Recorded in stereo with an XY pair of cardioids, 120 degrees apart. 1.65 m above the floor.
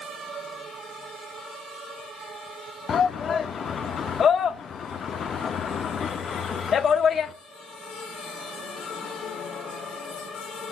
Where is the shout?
45° left, 0.6 m.